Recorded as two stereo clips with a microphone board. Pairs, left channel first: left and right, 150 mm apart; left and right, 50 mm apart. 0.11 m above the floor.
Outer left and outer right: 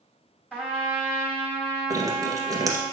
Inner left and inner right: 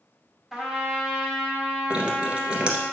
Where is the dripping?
25° right (ahead or behind), 1.8 m.